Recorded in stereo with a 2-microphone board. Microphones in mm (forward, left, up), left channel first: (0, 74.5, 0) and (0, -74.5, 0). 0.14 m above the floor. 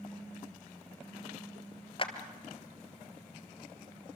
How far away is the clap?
About 1.9 m.